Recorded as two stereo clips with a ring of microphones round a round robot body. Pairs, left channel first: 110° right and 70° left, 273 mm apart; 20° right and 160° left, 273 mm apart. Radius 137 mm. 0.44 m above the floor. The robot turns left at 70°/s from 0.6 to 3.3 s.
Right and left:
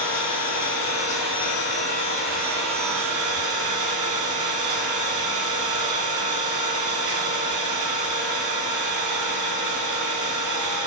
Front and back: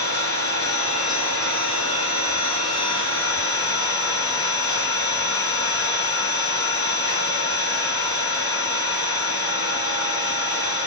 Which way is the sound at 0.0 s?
80° right.